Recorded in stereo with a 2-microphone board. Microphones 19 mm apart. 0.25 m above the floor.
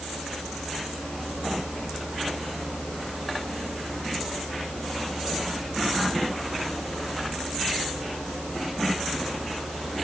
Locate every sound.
Only background noise.